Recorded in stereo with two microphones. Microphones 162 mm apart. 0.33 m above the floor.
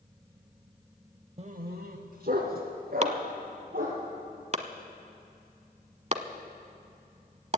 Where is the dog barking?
40° right (ahead or behind), 0.6 m; by 4.0 s 65° right (ahead or behind), 4.5 m.